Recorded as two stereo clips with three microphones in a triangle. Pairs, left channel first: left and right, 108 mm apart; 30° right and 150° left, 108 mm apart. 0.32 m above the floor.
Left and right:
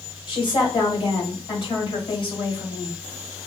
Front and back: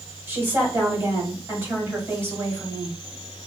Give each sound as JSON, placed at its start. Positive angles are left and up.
{"t": 0.3, "sound": "a woman speaking", "azimuth_deg": 85, "distance_m": 1.7}